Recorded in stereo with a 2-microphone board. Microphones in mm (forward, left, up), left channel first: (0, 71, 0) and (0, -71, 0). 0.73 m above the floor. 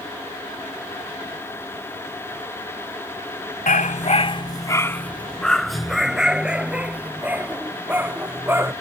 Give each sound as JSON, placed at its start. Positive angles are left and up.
{"t": 3.7, "sound": "a dog barking", "side_deg": 75}